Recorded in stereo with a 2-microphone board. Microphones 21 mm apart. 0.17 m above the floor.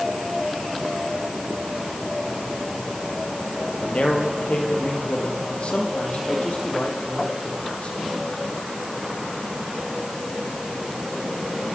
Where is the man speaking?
65° left (ahead or behind), 4 m; by 8.0 s 75° left (ahead or behind), 7 m.